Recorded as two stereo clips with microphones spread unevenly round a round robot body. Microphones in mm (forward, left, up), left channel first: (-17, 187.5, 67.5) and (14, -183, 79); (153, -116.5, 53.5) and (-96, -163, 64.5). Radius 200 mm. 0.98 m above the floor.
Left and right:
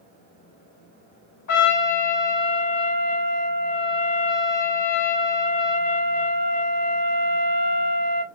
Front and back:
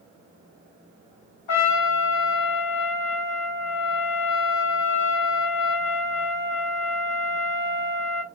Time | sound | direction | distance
1.5 | a trumpet | 50° left | 1.0 m